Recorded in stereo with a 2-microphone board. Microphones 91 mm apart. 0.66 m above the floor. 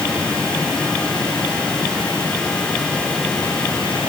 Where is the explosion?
I don't hear an explosion.